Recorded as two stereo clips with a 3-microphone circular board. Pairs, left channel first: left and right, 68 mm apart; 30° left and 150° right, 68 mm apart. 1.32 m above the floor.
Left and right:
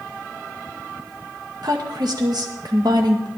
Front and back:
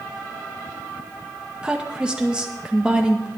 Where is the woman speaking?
75° right, 1.8 m.